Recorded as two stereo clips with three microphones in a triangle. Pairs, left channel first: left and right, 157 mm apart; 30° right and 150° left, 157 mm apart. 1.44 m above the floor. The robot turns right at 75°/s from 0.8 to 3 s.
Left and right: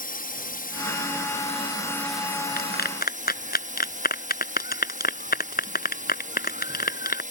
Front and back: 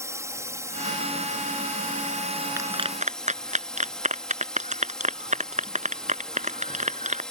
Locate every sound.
0.0 s a drone: 80° left; by 7.3 s 115° right
2.6 s a clap: 75° left; by 7.2 s 110° left